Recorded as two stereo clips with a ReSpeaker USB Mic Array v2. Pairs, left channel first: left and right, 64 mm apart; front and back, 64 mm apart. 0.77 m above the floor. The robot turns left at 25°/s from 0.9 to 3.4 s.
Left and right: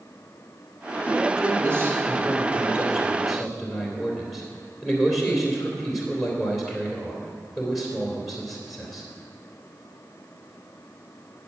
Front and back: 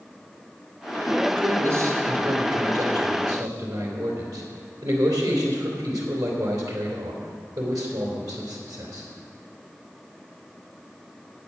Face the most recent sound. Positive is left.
turn(degrees=-175)